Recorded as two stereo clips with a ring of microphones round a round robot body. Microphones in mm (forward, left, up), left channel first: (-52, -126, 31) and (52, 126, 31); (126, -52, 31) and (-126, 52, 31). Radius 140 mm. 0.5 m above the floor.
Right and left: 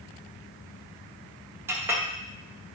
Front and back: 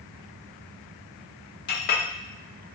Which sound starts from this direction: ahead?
A clink, at 1.7 s.